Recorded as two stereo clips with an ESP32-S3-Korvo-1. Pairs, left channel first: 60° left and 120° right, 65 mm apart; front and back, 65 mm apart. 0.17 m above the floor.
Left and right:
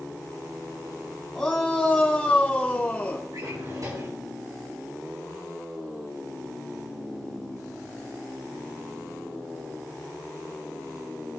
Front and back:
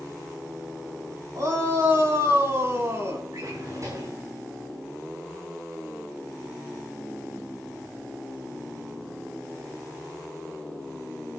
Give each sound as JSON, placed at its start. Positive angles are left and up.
{"t": 1.4, "sound": "a shout", "azimuth_deg": 145, "distance_m": 7.5}
{"t": 3.3, "sound": "a drawer", "azimuth_deg": -145, "distance_m": 8.0}